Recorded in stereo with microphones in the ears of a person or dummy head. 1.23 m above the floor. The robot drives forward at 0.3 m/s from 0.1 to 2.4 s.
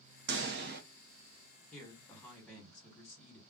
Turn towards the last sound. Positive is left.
turn(degrees=10)  # may be behind; listen again after turning